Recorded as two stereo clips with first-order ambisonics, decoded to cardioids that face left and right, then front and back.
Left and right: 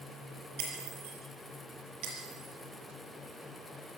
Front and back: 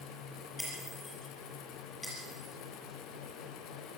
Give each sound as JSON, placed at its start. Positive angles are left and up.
{"t": 0.6, "sound": "breaking glass", "azimuth_deg": -85, "distance_m": 6.5}